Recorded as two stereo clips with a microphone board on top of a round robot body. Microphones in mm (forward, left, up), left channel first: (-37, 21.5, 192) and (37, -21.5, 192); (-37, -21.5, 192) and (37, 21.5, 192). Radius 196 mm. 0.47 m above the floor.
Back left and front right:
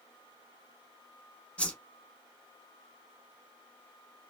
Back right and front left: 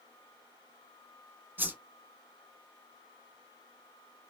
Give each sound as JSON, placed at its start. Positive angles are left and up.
{"t": 1.6, "sound": "a whoosh", "azimuth_deg": 80, "distance_m": 1.2}